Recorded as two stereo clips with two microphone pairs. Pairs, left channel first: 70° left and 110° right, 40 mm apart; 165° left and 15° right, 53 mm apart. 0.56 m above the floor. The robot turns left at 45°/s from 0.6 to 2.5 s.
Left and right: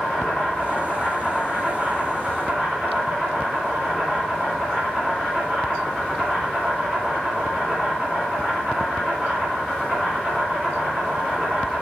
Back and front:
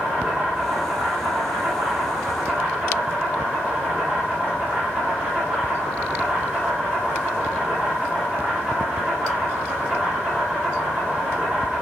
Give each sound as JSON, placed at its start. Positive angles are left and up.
{"t": 0.0, "sound": "an insect", "azimuth_deg": 20, "distance_m": 1.9}